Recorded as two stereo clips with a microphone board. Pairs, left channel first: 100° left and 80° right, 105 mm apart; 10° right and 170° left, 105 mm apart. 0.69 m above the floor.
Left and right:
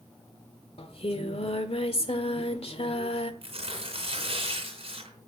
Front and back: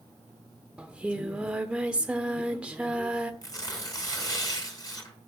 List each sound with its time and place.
0.8 s singing: 90° left, 1.2 m
3.4 s tearing paper: 65° right, 4.5 m